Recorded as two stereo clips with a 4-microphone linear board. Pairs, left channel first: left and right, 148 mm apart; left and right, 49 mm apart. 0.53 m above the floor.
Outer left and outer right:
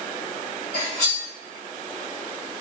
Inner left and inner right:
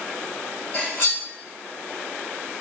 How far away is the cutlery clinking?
About 1.4 m.